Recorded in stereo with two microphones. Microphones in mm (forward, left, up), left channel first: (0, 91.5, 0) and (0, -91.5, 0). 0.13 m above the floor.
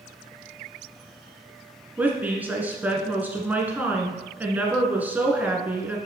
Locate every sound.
2.0 s a woman speaking: 10° right (ahead or behind), 1.2 m